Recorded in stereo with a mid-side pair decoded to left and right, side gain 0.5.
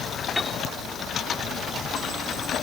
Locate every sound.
0.4 s a piano: 15° left